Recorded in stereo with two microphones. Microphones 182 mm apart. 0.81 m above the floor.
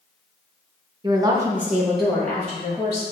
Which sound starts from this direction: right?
A woman speaking, at 1.0 s.